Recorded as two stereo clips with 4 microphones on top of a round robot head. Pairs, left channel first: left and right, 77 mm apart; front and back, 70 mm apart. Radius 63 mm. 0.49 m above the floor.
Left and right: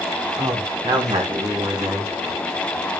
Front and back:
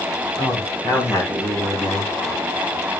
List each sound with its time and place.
0.4 s a man speaking: 55° right, 4.5 m; by 2.1 s 65° right, 5 m